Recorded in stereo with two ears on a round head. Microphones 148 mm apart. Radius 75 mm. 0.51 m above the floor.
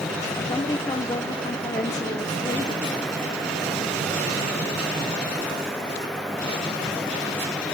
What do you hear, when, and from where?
0.5 s a woman speaking: 20° left (ahead or behind), 0.8 m